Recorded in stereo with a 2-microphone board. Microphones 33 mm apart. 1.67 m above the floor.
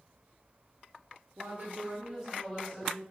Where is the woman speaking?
55° right (ahead or behind), 0.6 m; by 3.0 s 10° left (ahead or behind), 1.2 m.